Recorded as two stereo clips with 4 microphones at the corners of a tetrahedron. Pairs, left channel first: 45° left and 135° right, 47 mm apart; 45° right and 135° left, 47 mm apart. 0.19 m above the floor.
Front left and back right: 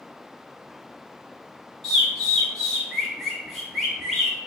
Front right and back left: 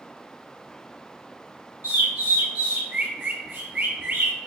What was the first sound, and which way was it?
A bird, 130° left.